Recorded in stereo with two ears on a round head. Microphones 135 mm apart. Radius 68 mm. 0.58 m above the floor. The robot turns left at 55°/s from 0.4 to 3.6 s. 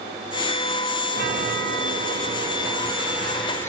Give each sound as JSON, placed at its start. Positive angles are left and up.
{"t": 1.1, "sound": "a chime", "azimuth_deg": -60, "distance_m": 2.5}